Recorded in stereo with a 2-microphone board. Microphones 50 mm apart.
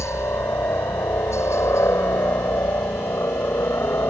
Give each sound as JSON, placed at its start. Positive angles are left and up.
{"t": 0.0, "sound": "a helicopter", "side_deg": 70}